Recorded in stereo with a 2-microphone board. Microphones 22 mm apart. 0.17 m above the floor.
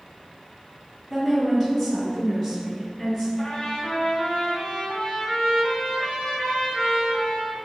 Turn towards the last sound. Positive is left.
turn(degrees=55)  # may be behind; listen again after turning